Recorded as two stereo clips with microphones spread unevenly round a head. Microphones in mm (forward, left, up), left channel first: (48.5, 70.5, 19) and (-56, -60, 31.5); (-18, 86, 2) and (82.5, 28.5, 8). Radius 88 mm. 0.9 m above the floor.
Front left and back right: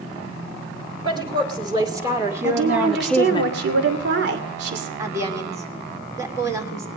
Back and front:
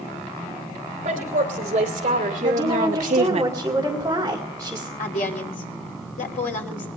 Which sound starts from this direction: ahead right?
A woman speaking, at 1.0 s.